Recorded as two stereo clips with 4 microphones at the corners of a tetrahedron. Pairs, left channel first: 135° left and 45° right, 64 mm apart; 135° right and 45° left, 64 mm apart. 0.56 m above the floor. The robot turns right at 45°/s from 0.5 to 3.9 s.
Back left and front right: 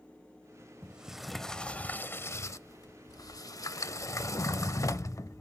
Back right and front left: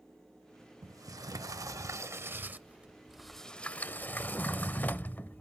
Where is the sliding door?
25° left, 0.6 m; by 5.4 s 165° left, 0.6 m.